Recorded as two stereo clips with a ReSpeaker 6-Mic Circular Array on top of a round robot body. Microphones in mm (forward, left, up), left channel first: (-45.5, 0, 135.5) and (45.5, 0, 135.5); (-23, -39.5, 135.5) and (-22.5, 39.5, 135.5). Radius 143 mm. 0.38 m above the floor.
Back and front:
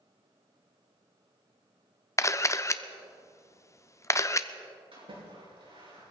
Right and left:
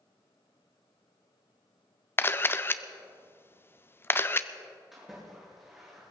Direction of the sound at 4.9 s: Straight ahead.